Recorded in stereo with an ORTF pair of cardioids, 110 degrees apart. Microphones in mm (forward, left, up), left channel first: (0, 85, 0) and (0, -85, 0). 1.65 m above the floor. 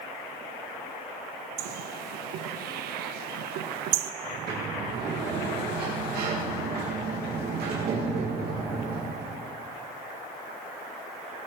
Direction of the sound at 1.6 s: 70° right.